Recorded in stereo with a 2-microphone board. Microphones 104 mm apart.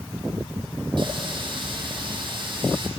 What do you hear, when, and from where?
1.0 s a running tap: 50° right (ahead or behind), 4.5 m